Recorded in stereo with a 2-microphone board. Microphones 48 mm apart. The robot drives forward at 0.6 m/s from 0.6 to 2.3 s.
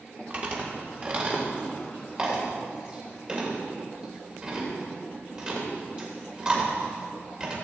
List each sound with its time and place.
0.3 s chewing: 35° right (ahead or behind), 1.9 m; by 7.5 s 25° right (ahead or behind), 3 m